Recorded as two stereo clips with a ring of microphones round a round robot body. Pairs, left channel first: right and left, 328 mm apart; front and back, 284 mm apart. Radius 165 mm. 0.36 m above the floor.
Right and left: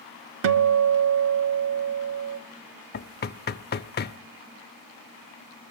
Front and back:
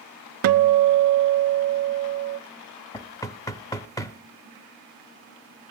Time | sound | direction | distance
0.4 | a guitar | 145° left | 0.6 m
2.9 | knocking | 65° right | 0.6 m